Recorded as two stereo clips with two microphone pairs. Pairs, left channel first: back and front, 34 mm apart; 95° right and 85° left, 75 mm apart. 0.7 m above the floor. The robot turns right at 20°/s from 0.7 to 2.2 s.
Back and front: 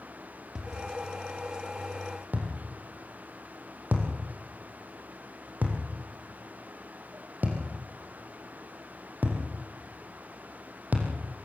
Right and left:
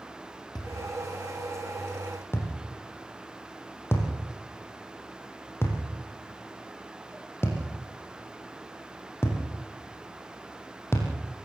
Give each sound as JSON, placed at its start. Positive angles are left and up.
{"t": 0.6, "sound": "a thud", "azimuth_deg": -75, "distance_m": 4.5}